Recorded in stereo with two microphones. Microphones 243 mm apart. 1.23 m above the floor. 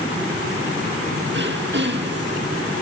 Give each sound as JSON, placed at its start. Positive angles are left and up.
{"t": 1.3, "sound": "throat clearing", "side_deg": -45, "distance_m": 1.8}